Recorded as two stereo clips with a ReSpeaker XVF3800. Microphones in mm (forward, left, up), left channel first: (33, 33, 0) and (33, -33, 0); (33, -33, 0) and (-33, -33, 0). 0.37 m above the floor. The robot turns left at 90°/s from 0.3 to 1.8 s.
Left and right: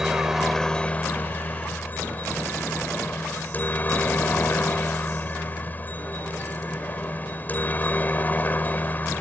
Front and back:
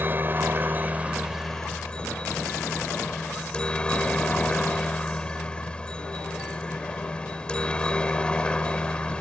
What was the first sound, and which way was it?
A helicopter, 165° right.